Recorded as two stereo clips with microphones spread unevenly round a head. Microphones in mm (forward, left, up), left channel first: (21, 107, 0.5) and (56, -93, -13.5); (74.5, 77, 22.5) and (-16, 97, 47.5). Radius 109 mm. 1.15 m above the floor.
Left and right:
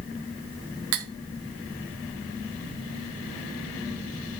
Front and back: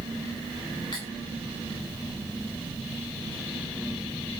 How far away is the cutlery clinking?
About 0.8 m.